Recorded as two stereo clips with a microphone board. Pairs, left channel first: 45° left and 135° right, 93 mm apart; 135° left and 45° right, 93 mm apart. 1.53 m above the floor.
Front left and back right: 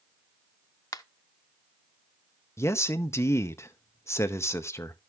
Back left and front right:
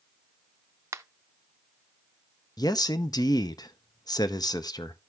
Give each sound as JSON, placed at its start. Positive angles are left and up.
{"t": 0.9, "sound": "a finger snap", "azimuth_deg": 5, "distance_m": 0.5}
{"t": 2.6, "sound": "a man speaking", "azimuth_deg": 100, "distance_m": 0.8}